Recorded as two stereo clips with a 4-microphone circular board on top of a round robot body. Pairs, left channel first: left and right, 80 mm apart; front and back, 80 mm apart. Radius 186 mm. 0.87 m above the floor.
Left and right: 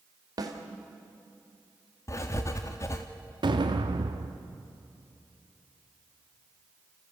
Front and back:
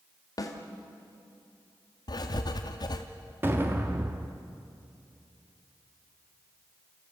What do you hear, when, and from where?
0.4 s a snare drum: 45° right, 1.7 m
2.1 s writing: 35° left, 0.7 m
3.4 s an explosion: 115° right, 0.6 m